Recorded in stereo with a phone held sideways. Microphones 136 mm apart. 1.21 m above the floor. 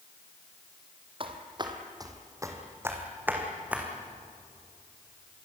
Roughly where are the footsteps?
Right.